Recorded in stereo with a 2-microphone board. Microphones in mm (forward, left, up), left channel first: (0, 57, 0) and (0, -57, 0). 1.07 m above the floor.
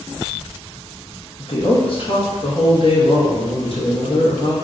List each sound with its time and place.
1.4 s a woman speaking: 55° left (ahead or behind), 1.2 m